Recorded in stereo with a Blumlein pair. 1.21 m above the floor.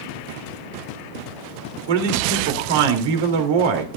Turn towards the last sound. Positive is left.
turn(degrees=-50)